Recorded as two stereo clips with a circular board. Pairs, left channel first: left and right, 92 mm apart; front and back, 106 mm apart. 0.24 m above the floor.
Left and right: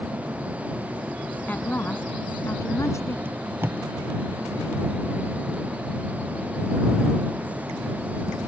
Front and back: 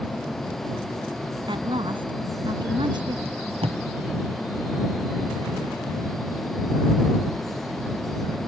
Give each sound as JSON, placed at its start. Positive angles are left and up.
{"t": 1.5, "sound": "a woman speaking", "azimuth_deg": 160}
{"t": 3.2, "sound": "tape being pulled", "azimuth_deg": -155}